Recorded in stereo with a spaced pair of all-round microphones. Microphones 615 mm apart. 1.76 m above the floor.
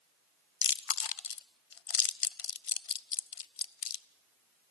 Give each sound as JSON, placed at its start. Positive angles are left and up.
{"t": 0.6, "sound": "chewing", "side_deg": 60, "distance_m": 0.6}